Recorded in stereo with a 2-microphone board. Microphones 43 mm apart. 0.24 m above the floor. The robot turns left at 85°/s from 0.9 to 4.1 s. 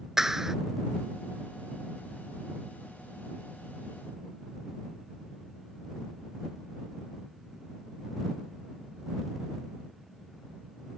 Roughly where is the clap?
Centre.